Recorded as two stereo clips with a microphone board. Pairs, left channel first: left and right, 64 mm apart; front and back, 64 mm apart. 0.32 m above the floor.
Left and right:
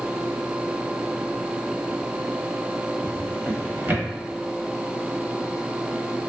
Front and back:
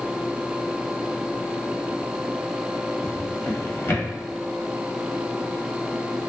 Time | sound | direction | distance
3.0 | a drawer | 45° right | 0.8 m